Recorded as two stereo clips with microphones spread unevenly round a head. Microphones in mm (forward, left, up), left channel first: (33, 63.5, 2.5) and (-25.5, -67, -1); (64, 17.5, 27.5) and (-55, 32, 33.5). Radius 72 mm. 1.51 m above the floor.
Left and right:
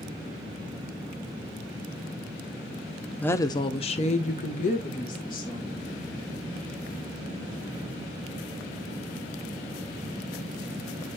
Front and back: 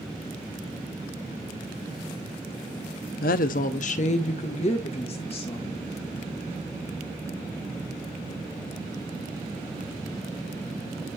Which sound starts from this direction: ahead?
A woman speaking, at 3.2 s.